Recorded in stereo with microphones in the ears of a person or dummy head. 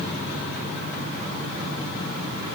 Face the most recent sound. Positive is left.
No sound to turn to.